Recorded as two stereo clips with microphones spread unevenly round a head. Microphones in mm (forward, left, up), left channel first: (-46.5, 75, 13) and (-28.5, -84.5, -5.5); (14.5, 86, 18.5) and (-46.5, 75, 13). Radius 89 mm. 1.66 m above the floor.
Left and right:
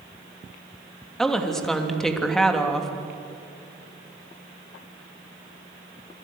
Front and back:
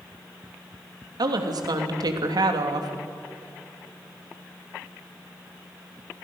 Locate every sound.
1.2 s a woman speaking: 175° right, 3 m